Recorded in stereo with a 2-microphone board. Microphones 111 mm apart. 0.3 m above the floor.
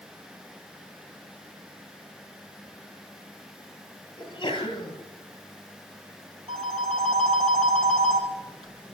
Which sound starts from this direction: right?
A phone ringing, at 6.5 s.